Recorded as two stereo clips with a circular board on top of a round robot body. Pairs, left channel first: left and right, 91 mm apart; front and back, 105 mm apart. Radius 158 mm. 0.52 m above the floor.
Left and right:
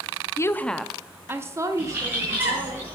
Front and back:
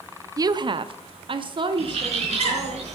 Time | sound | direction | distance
0.4 | a woman speaking | 135° left | 0.8 m
1.8 | a bird | 160° right | 4.5 m